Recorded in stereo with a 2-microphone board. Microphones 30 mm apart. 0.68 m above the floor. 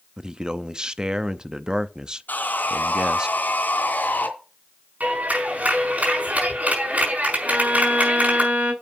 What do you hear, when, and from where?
0.2 s a man speaking: 25° right (ahead or behind), 0.6 m
2.3 s sawing: 85° left, 2.5 m
5.0 s a clap: 60° right (ahead or behind), 5.5 m
7.5 s a violin: 60° right (ahead or behind), 4 m